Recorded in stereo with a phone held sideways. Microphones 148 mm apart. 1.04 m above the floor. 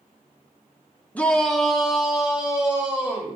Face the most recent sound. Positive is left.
turn(degrees=-10)  # may be behind; listen again after turning